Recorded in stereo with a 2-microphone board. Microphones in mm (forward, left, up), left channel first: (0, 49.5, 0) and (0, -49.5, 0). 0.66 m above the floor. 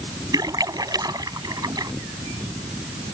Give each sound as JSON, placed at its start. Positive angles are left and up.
{"t": 0.3, "sound": "a splash", "side_deg": -40}